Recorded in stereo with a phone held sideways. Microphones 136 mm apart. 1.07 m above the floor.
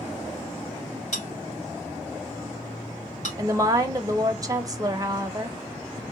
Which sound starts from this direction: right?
A woman speaking, at 3.4 s.